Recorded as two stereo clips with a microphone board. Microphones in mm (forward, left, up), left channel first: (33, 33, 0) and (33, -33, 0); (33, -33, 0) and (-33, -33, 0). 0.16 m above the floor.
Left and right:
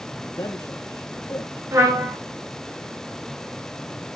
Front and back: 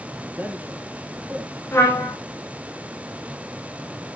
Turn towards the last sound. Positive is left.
turn(degrees=-50)